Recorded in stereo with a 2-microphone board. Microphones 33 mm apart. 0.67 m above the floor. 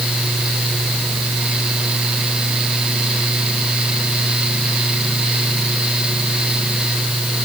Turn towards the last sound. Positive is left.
No sound to turn to.